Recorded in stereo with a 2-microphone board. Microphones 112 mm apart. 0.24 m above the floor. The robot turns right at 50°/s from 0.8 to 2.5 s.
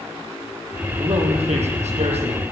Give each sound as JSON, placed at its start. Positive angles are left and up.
{"t": 0.9, "sound": "a man speaking", "azimuth_deg": -135, "distance_m": 9.5}